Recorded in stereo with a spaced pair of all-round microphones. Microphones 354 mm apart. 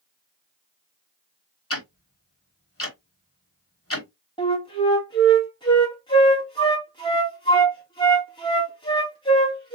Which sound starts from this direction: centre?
A flute, at 4.4 s.